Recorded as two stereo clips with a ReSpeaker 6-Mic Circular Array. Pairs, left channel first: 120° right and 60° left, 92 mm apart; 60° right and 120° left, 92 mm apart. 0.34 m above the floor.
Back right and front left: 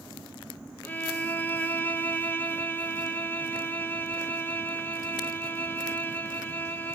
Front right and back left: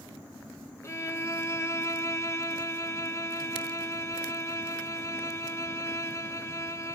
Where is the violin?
70° right, 1.0 m.